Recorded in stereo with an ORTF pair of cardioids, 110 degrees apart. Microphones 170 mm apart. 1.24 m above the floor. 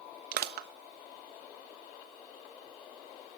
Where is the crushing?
65° right, 1.4 m.